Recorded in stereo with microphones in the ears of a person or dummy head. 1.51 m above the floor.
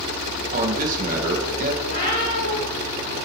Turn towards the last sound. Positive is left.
turn(degrees=45)  # may be behind; listen again after turning